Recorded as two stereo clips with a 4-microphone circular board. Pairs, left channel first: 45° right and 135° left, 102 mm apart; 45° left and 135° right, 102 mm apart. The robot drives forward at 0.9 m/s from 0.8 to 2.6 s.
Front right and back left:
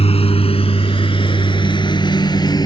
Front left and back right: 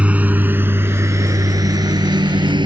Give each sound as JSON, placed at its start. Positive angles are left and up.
{"t": 0.0, "sound": "a lawn mower", "azimuth_deg": -55}